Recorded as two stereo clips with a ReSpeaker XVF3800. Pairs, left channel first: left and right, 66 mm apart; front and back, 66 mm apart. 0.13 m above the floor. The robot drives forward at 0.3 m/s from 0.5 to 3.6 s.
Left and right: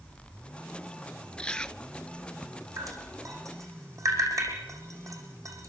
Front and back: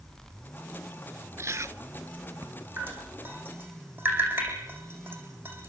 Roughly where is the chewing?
Behind.